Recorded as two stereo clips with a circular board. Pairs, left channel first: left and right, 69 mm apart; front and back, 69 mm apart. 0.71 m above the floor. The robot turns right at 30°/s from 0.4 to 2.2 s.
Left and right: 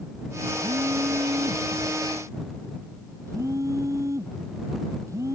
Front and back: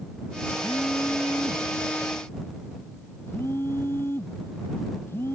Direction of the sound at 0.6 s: 100° right.